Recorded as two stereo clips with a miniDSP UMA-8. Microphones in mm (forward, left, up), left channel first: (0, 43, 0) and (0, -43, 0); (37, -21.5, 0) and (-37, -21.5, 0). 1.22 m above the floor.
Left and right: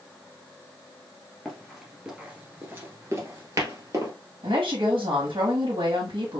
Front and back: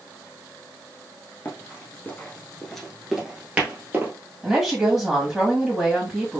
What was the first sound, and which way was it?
Running footsteps, 5° left.